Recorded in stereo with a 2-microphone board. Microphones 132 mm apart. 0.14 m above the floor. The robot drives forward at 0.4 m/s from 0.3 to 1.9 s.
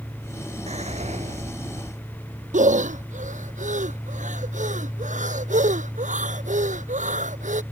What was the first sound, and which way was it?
Whispering, 55° right (ahead or behind).